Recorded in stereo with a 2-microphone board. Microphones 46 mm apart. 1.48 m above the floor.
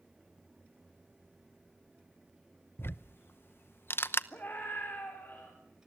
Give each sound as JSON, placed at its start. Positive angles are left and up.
{"t": 2.8, "sound": "ticking", "side_deg": 55, "distance_m": 0.8}
{"t": 4.3, "sound": "a scream", "side_deg": 45, "distance_m": 4.0}